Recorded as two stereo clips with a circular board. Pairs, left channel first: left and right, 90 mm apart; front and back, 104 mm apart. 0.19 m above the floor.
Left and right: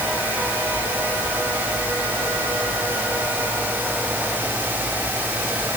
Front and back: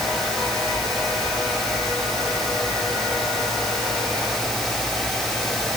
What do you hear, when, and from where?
Only background noise.